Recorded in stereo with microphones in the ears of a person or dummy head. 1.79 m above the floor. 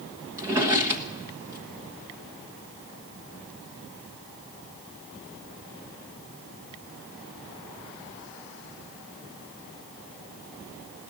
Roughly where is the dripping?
No dripping in this recording.